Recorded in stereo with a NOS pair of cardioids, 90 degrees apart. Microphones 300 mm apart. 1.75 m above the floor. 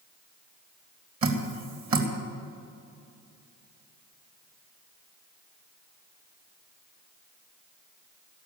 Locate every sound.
1.2 s dripping: 45° right, 3 m